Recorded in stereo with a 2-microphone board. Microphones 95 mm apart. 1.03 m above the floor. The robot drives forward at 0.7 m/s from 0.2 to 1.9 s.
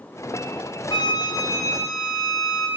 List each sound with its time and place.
0.9 s a flute: 55° left (ahead or behind), 0.8 m; by 2.7 s 30° left (ahead or behind), 1.2 m